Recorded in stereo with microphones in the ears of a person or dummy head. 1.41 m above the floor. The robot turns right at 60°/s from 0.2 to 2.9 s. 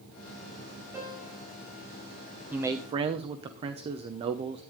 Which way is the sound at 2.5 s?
5° right (ahead or behind).